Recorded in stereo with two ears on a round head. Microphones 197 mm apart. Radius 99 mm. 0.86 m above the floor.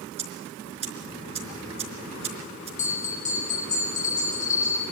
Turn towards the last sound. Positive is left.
turn(degrees=35)  # may be behind; listen again after turning